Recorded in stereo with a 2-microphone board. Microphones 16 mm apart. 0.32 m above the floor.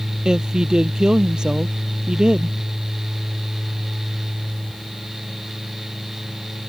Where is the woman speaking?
55° right (ahead or behind).